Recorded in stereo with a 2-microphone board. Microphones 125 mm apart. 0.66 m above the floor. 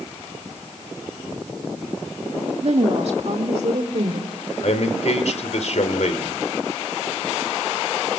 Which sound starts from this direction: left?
A man speaking, at 4.6 s.